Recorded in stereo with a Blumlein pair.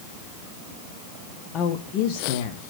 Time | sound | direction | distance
1.5 | a woman speaking | 30° left | 0.8 m